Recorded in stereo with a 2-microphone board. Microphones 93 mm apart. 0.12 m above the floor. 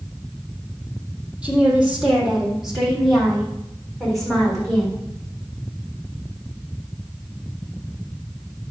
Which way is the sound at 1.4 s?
10° right (ahead or behind).